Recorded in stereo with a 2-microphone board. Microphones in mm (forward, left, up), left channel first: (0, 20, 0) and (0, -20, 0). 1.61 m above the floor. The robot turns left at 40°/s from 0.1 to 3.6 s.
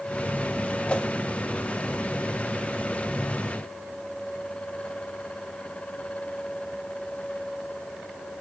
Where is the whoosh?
25° left (ahead or behind), 1.4 m; by 1.1 s 35° left (ahead or behind), 1.4 m.